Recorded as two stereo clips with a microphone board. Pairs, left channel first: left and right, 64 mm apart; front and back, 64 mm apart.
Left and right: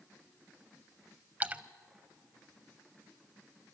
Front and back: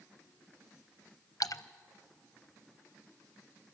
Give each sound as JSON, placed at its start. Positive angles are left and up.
{"t": 1.4, "sound": "a splash", "azimuth_deg": -25, "distance_m": 0.6}